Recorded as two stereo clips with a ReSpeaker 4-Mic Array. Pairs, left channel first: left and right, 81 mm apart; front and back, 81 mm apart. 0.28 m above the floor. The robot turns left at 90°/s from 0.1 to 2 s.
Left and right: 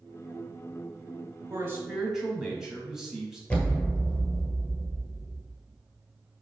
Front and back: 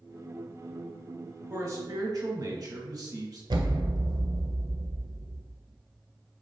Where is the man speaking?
130° right, 1.5 m; by 3.4 s 175° right, 1.5 m.